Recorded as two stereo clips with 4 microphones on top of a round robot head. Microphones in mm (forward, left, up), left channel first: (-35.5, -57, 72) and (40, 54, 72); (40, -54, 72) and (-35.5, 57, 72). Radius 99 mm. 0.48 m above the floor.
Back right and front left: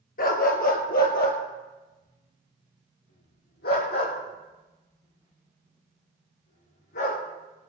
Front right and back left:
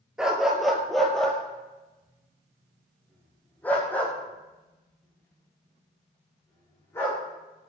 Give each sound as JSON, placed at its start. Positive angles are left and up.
{"t": 0.2, "sound": "a dog barking", "azimuth_deg": -150, "distance_m": 2.5}